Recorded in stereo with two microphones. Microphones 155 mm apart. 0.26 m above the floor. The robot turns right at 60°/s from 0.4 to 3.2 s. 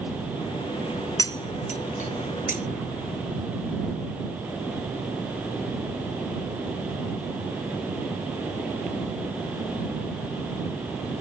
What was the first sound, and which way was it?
Cutlery clinking, 20° left (ahead or behind).